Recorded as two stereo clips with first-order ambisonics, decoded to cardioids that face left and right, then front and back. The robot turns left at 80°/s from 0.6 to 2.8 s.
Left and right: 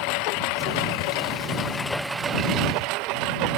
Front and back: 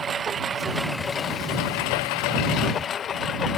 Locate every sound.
0.0 s a lawn mower: 110° left; by 3.6 s 60° right